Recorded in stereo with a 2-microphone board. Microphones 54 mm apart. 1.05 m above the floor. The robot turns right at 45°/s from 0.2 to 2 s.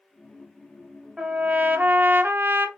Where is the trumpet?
160° right, 0.9 m; by 2.7 s 120° right, 0.9 m.